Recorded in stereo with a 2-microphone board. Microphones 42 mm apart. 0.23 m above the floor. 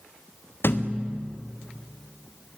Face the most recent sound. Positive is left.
turn(degrees=70)  # may be behind; listen again after turning